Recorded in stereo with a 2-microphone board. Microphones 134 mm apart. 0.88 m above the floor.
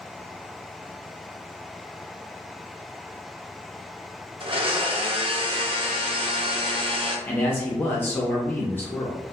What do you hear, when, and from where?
4.4 s a blender: 45° right (ahead or behind), 0.5 m
7.3 s a man speaking: 15° left (ahead or behind), 0.6 m